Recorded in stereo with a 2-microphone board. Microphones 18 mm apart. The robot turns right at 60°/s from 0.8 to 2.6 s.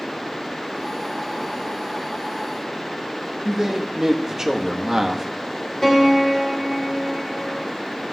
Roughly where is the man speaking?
Right.